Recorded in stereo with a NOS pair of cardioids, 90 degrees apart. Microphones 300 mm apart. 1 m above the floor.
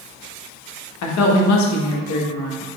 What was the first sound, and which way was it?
A woman speaking, 65° left.